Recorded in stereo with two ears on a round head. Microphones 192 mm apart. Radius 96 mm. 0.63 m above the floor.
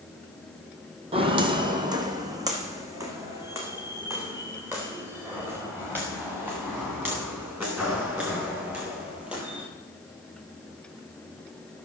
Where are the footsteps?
25° right (ahead or behind), 1.5 m; by 9.6 s 10° right (ahead or behind), 8 m.